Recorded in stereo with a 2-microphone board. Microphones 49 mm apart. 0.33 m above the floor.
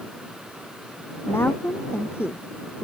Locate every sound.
1.3 s a woman speaking: 55° left (ahead or behind)